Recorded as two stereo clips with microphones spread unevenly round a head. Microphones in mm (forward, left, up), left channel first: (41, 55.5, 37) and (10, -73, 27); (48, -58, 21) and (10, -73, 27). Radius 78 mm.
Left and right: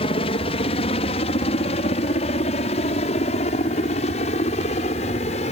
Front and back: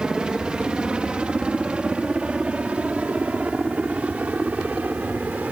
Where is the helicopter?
125° left.